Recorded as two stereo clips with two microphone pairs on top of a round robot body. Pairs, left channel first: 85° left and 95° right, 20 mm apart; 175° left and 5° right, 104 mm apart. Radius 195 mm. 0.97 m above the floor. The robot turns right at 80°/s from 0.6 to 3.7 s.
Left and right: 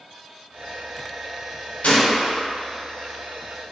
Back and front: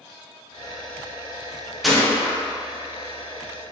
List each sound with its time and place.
1.8 s a gunshot: 85° left, 1.6 m; by 2.4 s 130° left, 1.6 m